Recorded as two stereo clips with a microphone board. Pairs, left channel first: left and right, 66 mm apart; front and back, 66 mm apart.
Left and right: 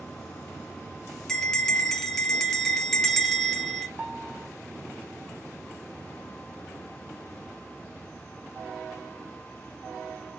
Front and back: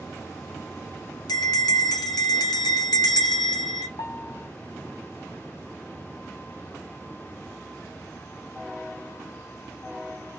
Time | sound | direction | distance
1.3 | a bell | 10° left | 0.9 m
4.0 | a piano | 20° right | 2.0 m